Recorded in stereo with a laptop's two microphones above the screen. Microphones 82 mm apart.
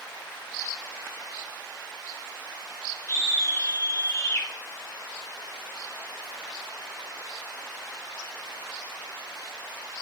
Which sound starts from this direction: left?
A scream, at 3.1 s.